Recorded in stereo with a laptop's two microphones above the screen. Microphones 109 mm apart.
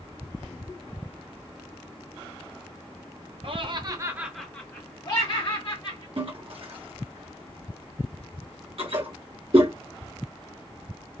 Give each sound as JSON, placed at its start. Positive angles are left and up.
{"t": 3.4, "sound": "laughter", "side_deg": -55, "distance_m": 0.8}
{"t": 6.2, "sound": "a toilet flushing", "side_deg": -55, "distance_m": 0.7}